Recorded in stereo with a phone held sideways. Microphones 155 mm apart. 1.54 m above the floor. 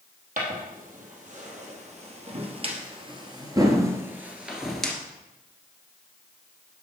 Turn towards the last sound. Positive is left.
turn(degrees=5)  # may be behind; listen again after turning